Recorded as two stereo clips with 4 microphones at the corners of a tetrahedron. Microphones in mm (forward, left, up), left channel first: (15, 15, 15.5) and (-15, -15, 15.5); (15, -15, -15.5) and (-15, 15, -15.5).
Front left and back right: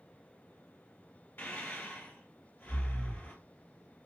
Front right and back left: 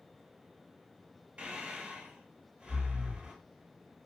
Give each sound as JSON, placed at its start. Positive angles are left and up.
{"t": 1.4, "sound": "breathing", "azimuth_deg": 80, "distance_m": 1.6}